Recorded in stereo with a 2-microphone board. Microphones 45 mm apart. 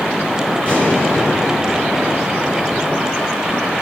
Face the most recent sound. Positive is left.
turn(degrees=25)  # may be behind; listen again after turning